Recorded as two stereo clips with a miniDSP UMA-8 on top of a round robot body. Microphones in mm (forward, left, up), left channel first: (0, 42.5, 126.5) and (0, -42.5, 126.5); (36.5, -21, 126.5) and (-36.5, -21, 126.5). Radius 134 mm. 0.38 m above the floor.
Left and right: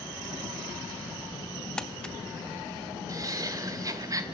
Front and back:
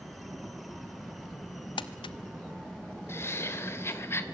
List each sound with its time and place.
1.8 s crumpling: 10° left, 0.6 m
3.1 s laughter: 50° right, 2.5 m